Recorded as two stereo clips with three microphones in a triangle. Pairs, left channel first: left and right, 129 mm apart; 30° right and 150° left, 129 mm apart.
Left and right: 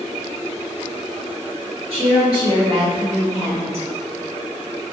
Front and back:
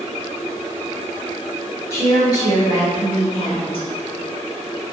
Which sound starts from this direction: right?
A woman speaking, at 1.9 s.